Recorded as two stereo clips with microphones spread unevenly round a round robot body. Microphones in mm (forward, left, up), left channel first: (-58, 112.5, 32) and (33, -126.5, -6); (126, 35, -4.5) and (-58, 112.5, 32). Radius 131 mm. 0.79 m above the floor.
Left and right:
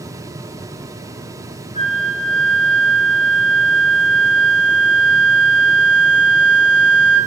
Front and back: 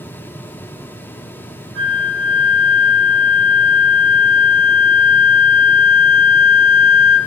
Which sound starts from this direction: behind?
A flute, at 1.8 s.